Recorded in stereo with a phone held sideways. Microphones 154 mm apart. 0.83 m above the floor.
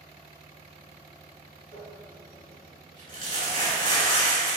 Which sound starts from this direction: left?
Crumpling, at 1.7 s.